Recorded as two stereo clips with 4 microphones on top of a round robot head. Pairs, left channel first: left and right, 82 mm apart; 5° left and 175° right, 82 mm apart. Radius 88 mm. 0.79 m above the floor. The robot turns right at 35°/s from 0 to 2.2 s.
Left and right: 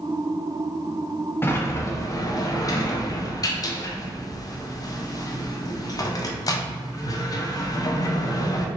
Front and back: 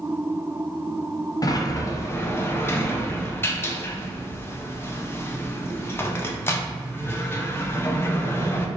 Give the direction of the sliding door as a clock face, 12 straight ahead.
11 o'clock.